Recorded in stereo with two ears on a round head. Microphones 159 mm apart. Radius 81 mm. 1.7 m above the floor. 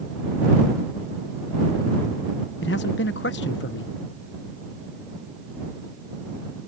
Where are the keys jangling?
I don't hear keys jangling.